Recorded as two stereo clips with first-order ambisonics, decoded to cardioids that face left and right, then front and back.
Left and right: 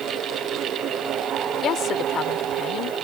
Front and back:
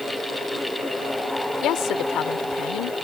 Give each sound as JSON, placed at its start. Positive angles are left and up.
{"t": 1.6, "sound": "a woman speaking", "azimuth_deg": 40}